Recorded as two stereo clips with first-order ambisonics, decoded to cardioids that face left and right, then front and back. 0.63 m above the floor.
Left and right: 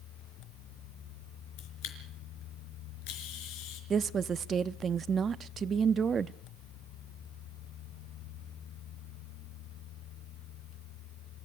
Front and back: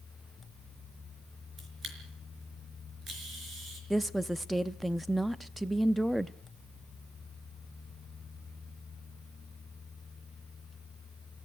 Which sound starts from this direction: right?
A woman speaking, at 3.9 s.